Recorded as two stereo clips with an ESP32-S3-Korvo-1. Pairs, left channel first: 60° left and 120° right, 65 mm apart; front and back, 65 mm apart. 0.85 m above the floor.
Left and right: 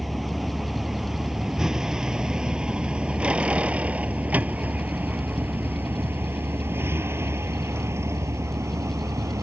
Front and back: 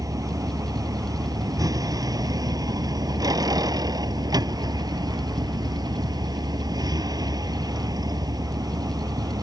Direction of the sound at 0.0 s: 150° left.